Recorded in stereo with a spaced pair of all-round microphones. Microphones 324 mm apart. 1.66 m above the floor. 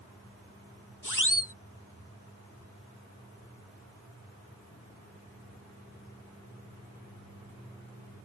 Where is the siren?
70° left (ahead or behind).